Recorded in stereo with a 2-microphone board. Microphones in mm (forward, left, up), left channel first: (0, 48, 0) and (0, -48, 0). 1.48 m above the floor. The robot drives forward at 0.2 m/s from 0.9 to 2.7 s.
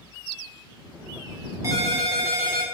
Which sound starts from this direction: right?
A ringtone, at 1.6 s.